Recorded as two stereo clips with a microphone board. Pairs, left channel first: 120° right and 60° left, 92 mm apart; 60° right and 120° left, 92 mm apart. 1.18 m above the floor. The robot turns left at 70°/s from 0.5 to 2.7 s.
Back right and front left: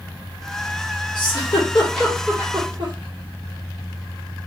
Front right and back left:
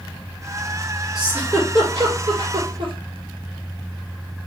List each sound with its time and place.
1.1 s a giggle: 155° right, 1.5 m; by 2.9 s 100° left, 1.5 m